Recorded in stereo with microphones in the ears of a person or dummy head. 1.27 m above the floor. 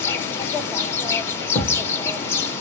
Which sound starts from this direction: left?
A thud, at 1.6 s.